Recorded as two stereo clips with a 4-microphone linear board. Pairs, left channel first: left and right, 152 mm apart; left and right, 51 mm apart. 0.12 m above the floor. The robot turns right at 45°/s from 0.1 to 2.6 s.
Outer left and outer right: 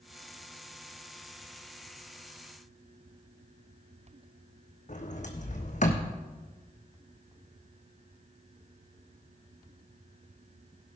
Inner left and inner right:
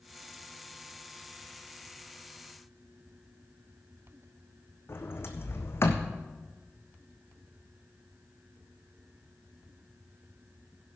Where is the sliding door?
55° left (ahead or behind), 1.6 m.